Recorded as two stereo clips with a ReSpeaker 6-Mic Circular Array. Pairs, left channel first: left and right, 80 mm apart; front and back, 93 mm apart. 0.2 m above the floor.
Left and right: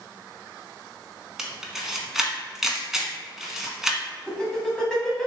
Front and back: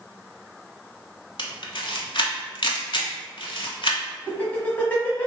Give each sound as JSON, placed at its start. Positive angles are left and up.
{"t": 1.4, "sound": "a camera shutter", "azimuth_deg": -5, "distance_m": 0.5}
{"t": 4.3, "sound": "laughter", "azimuth_deg": 25, "distance_m": 1.0}